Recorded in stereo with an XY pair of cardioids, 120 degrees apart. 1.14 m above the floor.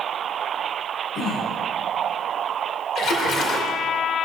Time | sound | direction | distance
1.1 | throat clearing | 55° left | 4.5 m
3.0 | a splash | 60° left | 1.7 m